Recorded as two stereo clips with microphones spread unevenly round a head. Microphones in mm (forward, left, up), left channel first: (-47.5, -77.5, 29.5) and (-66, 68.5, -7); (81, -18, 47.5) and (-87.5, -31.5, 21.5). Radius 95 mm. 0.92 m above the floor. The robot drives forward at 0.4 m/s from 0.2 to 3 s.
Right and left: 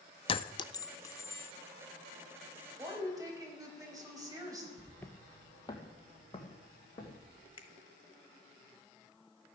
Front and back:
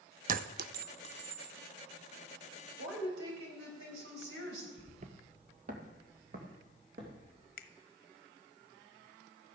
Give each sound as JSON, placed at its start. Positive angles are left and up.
{"t": 0.3, "sound": "a clink", "azimuth_deg": -130, "distance_m": 0.5}
{"t": 2.8, "sound": "a woman speaking", "azimuth_deg": 165, "distance_m": 4.0}
{"t": 4.8, "sound": "footsteps", "azimuth_deg": -140, "distance_m": 0.9}
{"t": 7.6, "sound": "a finger snap", "azimuth_deg": -20, "distance_m": 1.0}